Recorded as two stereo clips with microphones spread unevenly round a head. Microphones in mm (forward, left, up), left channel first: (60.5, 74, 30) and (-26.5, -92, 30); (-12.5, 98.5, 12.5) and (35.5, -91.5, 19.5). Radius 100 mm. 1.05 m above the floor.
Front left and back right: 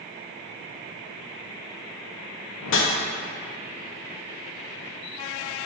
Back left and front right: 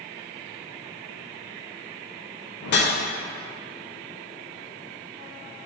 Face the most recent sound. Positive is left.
turn(degrees=75)